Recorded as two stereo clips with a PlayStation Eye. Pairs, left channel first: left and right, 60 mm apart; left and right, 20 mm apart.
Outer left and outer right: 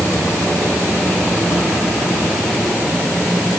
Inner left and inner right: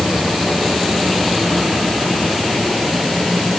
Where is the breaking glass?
No breaking glass in this recording.